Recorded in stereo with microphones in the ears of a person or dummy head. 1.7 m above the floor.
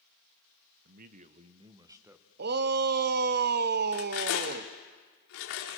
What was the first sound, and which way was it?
A man speaking, 50° right (ahead or behind).